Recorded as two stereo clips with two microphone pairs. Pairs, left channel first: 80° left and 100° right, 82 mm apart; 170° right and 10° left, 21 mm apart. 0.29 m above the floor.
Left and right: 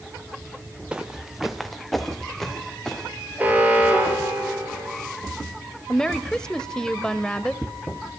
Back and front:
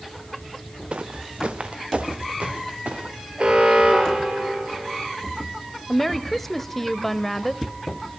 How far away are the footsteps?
About 1.6 m.